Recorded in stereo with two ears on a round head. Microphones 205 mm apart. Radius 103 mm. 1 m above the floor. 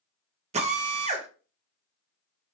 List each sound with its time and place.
0.5 s a drill: 30° right (ahead or behind), 0.7 m